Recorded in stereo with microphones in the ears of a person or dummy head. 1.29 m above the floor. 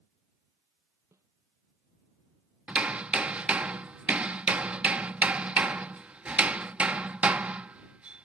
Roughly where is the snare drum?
Centre.